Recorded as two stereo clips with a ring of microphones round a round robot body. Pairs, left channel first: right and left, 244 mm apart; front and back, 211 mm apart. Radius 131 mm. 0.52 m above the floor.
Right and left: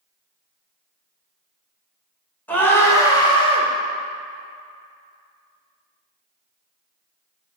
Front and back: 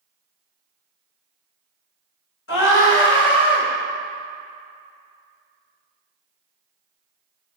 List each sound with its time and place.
2.5 s a scream: 5° right, 1.9 m; by 3.7 s 30° right, 1.5 m